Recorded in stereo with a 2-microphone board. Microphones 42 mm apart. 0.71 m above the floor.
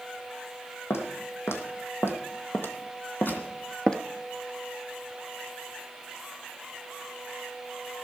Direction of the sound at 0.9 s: 70° left (ahead or behind).